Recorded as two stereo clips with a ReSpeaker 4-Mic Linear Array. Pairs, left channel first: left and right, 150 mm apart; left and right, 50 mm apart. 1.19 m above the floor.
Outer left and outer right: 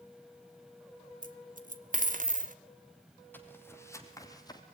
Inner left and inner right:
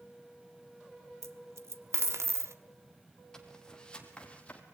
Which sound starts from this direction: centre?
Footsteps, at 3.3 s.